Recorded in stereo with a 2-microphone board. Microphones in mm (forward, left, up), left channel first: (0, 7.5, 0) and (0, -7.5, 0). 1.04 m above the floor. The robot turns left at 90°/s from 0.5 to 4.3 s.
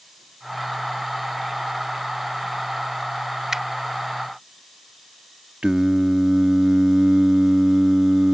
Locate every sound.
3.5 s a finger snap: 30° right (ahead or behind); by 3.6 s 20° right (ahead or behind)
5.6 s singing: 70° right (ahead or behind)